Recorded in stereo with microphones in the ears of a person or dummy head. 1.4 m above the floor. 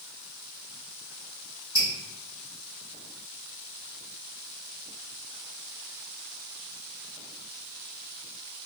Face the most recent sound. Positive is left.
turn(degrees=-15)  # may be behind; listen again after turning